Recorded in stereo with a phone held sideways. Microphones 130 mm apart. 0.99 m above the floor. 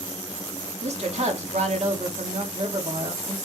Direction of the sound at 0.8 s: 55° right (ahead or behind).